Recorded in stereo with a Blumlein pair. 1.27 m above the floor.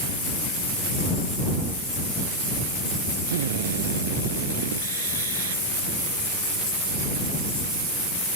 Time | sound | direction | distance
3.3 | a drill | 60° right | ?